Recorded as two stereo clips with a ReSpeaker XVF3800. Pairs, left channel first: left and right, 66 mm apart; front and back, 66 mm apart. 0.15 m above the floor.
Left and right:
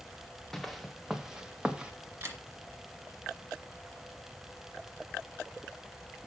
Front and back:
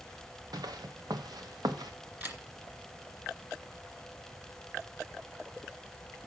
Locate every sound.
0.5 s footsteps: 175° left, 1.2 m; by 1.9 s 165° right, 1.9 m
2.2 s a camera shutter: 135° right, 2.5 m